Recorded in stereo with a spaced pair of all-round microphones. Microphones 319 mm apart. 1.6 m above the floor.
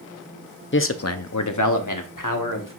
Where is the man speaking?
35° left (ahead or behind), 0.6 m; by 2.8 s 80° left, 1.5 m.